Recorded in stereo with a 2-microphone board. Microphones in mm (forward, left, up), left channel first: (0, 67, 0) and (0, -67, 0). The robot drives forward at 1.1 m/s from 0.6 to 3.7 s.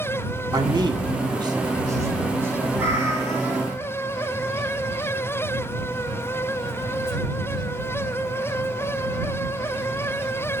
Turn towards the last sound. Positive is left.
turn(degrees=-30)  # may be behind; listen again after turning